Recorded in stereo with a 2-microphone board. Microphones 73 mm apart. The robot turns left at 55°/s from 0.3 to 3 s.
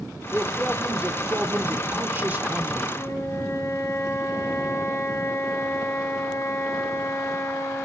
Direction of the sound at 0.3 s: Centre (ahead or behind).